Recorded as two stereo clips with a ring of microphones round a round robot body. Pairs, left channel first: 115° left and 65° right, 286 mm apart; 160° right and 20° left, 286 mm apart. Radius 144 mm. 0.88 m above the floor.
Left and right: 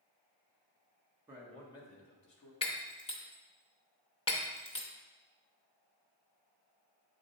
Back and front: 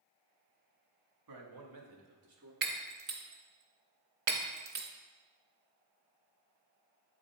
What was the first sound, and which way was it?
A man speaking, 15° left.